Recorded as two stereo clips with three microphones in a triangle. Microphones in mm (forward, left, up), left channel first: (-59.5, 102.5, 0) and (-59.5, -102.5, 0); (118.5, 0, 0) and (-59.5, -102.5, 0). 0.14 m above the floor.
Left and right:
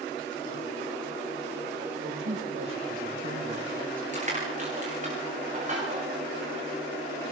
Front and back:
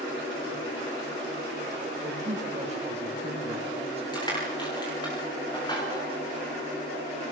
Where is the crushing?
40° right, 10 m.